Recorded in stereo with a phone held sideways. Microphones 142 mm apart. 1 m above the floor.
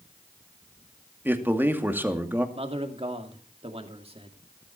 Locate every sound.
1.2 s a man speaking: 15° right (ahead or behind), 2.5 m
2.5 s a man speaking: 45° right (ahead or behind), 2.5 m